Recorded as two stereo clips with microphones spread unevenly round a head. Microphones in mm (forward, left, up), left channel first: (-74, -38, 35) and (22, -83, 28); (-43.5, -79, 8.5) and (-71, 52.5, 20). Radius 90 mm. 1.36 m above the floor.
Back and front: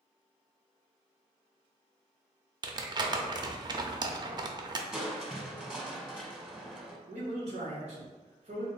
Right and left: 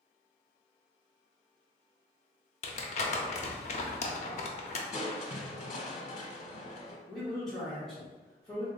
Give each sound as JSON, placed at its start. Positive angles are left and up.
{"t": 2.6, "sound": "crumpling", "azimuth_deg": -65, "distance_m": 0.6}
{"t": 4.9, "sound": "crushing", "azimuth_deg": -110, "distance_m": 0.8}
{"t": 7.1, "sound": "a man speaking", "azimuth_deg": 10, "distance_m": 1.1}